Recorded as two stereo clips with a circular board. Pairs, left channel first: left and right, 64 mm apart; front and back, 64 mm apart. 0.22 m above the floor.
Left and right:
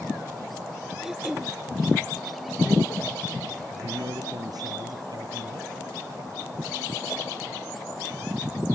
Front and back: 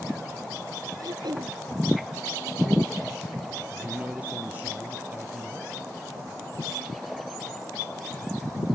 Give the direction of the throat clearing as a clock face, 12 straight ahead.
6 o'clock.